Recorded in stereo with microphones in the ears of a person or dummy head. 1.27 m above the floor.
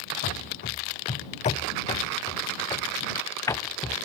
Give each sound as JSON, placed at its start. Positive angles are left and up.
{"t": 0.2, "sound": "running footsteps", "side_deg": 50}